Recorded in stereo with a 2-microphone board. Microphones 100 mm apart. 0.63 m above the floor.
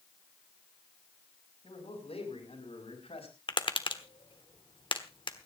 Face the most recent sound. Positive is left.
turn(degrees=55)  # may be behind; listen again after turning